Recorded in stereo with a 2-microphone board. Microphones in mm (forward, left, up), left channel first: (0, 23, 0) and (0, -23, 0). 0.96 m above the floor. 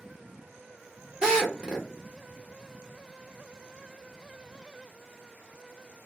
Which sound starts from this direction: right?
A drill, at 1.2 s.